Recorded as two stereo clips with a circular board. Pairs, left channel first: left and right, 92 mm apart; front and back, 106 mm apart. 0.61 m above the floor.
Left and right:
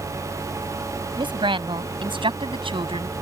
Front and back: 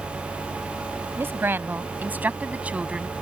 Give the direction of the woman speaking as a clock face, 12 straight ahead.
4 o'clock.